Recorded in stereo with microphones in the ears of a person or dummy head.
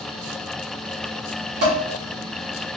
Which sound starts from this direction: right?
Dishes clattering, at 1.6 s.